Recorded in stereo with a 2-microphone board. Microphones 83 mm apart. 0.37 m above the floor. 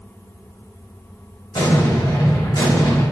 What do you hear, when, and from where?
1.5 s an explosion: 60° left (ahead or behind), 1.3 m